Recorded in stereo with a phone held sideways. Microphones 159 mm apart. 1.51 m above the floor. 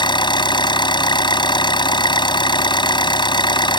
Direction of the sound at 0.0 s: 30° left (ahead or behind).